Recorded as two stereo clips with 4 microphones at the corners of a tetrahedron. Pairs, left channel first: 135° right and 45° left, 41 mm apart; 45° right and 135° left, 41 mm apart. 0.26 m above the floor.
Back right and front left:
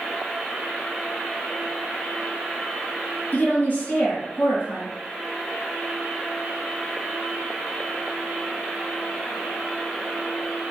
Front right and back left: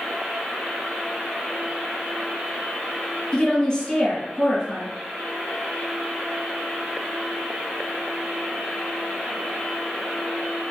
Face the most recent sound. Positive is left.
turn(degrees=-110)